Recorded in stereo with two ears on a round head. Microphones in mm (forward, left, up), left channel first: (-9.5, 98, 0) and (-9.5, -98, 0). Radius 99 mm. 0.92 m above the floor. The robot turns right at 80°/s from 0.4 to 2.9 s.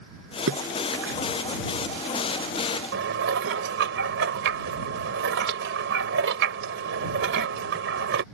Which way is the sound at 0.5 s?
70° right (ahead or behind).